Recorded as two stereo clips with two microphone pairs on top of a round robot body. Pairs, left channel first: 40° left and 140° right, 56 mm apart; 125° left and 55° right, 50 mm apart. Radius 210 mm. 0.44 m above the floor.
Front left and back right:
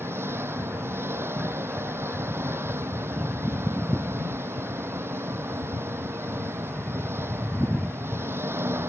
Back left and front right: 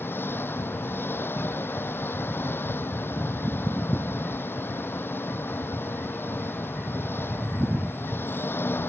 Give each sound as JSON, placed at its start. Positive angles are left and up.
{"t": 0.0, "sound": "an engine running", "azimuth_deg": 170}